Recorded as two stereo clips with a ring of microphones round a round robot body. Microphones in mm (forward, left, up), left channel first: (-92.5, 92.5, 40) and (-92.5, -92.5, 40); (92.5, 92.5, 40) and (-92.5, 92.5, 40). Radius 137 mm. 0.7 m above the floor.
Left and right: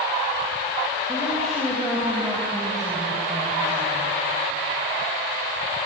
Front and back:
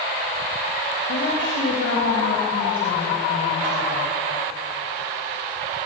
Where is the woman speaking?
5° left, 4 m.